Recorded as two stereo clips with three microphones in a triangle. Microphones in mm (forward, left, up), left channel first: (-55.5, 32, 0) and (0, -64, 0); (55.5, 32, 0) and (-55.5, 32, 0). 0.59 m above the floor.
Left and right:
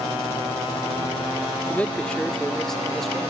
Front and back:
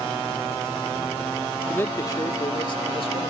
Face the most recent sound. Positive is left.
turn(degrees=30)